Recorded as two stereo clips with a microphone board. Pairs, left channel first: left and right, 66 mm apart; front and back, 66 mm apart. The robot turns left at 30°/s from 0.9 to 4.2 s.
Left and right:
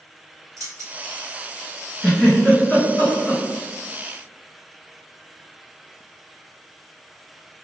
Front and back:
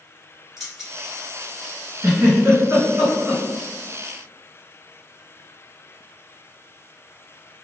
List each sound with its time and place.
0.6 s keys jangling: 100° right, 1.4 m
2.0 s a giggle: 175° left, 1.9 m; by 3.4 s 130° left, 1.9 m